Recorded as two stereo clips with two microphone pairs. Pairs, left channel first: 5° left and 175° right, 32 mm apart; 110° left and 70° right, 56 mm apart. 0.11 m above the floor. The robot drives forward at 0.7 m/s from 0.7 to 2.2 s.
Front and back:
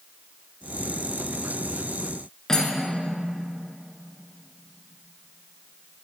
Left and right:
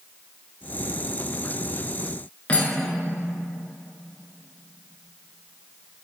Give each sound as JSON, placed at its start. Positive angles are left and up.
{"t": 2.5, "sound": "cutlery clinking", "azimuth_deg": 60, "distance_m": 1.0}